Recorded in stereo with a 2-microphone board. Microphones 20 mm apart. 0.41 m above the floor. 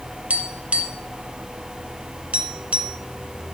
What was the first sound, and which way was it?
Tapping, 85° right.